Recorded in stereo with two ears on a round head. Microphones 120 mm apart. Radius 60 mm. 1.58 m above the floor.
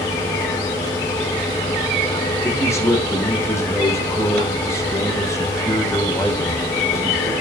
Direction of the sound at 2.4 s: 20° left (ahead or behind).